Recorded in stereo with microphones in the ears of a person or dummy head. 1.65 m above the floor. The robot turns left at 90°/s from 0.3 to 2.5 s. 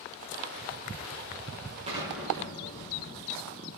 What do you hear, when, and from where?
1.9 s an explosion: 150° right, 4 m; by 3.8 s 155° left, 4 m